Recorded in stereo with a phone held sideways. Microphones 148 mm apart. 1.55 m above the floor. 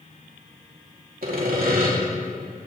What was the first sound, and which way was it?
Sawing, 80° right.